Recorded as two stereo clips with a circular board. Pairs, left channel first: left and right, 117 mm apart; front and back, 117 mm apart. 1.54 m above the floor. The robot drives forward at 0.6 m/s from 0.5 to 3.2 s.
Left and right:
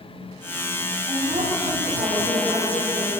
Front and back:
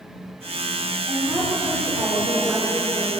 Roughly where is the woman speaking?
Behind right.